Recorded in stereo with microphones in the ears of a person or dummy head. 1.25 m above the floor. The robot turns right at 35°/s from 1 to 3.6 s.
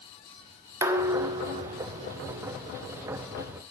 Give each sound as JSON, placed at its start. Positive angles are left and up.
{"t": 0.8, "sound": "dishes clattering", "azimuth_deg": -165, "distance_m": 0.5}